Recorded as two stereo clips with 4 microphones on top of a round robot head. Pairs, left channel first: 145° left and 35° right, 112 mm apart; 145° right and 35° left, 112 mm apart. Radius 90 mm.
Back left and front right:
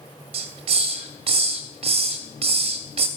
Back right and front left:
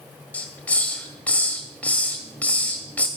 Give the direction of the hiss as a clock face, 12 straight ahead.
2 o'clock.